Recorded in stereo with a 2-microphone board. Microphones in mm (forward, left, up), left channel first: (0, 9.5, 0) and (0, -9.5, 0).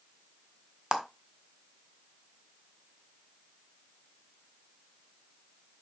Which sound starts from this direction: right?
A clap, at 0.9 s.